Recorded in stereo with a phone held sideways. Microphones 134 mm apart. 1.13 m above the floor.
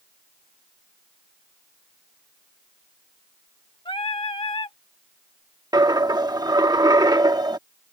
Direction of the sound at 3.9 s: 40° left (ahead or behind).